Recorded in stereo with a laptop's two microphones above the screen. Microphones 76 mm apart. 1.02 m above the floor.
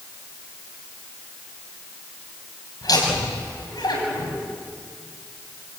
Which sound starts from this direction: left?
Laughter, at 2.8 s.